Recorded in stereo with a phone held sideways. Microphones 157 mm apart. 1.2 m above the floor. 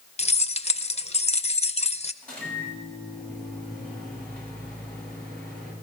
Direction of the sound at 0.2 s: 45° left (ahead or behind).